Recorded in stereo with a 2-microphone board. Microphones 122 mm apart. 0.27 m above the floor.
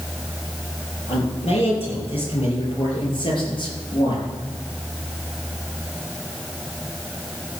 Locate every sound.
1.1 s a man speaking: 55° left (ahead or behind), 7 m; by 4.3 s 40° left (ahead or behind), 5.5 m